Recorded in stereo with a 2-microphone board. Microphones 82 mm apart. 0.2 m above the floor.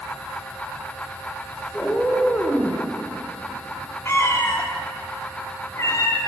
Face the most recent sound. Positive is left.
turn(degrees=35)  # may be behind; listen again after turning